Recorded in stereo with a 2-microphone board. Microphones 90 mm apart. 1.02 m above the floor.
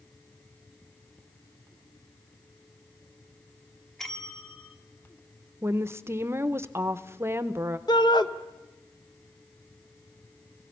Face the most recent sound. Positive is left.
turn(degrees=55)  # may be behind; listen again after turning